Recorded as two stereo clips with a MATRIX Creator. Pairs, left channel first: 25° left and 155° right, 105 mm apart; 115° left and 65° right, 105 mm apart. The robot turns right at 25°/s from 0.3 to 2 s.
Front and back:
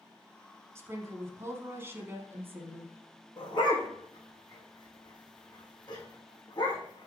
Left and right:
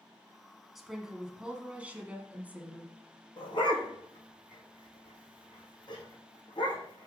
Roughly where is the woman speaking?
Behind right.